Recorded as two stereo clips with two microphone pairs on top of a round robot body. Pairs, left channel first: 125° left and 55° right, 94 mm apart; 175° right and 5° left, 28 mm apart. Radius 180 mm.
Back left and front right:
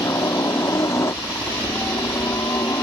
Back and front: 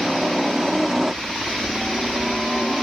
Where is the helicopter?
90° left; by 2.8 s 80° left.